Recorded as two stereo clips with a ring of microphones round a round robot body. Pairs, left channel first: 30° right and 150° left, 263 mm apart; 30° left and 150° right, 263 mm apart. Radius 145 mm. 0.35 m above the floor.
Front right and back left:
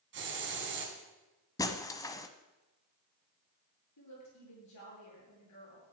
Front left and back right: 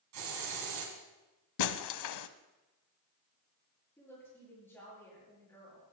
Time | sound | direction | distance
0.1 | a hiss | 165° right | 3 m
1.6 | breaking glass | 50° left | 0.7 m
4.0 | a woman speaking | 50° right | 9 m